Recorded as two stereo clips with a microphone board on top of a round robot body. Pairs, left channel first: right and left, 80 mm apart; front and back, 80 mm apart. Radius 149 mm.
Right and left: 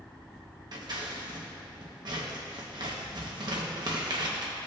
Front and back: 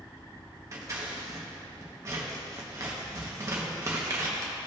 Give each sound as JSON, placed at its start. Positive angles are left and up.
{"t": 0.7, "sound": "scissors", "azimuth_deg": 125, "distance_m": 1.1}